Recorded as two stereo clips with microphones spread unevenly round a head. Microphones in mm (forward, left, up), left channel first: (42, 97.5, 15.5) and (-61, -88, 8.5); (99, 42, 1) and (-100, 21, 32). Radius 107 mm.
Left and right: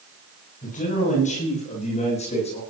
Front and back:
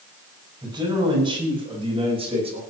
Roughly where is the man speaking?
Behind left.